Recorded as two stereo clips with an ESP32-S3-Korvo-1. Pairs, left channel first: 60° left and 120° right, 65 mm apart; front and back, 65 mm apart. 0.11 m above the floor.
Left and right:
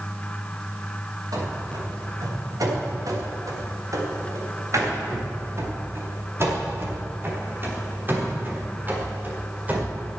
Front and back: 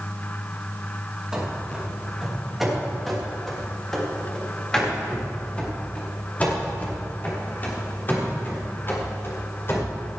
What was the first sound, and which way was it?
Running footsteps, 100° right.